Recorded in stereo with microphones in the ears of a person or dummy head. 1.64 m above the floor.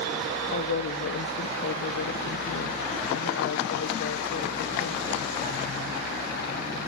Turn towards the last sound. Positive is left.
turn(degrees=65)  # may be behind; listen again after turning